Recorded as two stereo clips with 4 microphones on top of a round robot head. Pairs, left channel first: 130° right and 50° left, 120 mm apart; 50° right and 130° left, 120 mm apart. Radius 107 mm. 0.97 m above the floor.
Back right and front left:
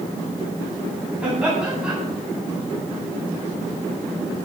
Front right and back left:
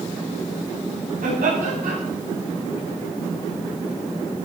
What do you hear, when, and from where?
1.2 s laughter: 130° left, 9.5 m